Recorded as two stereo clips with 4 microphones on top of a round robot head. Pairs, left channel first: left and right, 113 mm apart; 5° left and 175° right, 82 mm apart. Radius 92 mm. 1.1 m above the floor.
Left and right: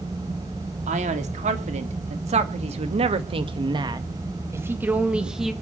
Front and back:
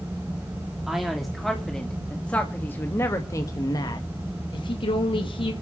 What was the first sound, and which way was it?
A man speaking, 90° right.